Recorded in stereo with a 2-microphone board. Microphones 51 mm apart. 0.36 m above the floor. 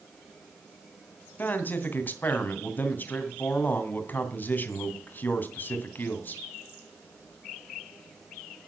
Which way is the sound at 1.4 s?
40° left (ahead or behind).